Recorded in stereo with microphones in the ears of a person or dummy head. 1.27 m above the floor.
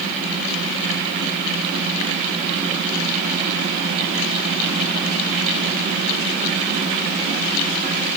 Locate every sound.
Only background noise.